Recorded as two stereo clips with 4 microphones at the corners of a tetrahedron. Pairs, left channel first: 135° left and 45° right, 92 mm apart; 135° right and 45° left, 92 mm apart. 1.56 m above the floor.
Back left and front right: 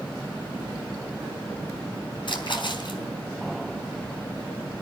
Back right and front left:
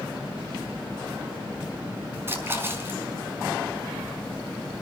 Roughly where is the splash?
Left.